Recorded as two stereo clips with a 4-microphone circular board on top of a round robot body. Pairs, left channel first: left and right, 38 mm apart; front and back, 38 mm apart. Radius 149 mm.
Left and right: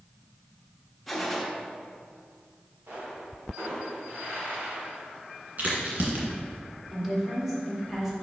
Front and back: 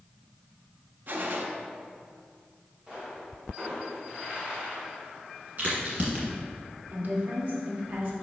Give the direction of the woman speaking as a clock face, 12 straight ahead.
6 o'clock.